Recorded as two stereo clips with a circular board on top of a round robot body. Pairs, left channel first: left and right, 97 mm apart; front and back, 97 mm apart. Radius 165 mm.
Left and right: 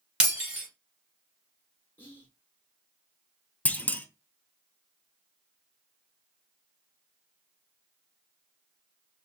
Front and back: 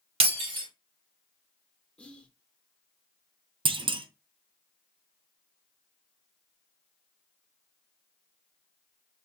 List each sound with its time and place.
0.2 s breaking glass: 170° right, 1.9 m
2.0 s whispering: 70° left, 1.0 m
3.6 s a clunk: 165° left, 0.5 m